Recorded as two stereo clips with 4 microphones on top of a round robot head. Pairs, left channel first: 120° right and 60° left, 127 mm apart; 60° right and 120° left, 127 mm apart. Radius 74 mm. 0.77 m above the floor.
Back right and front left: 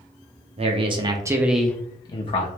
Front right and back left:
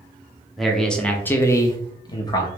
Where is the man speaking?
30° left, 0.8 m; by 2.5 s 110° right, 0.7 m.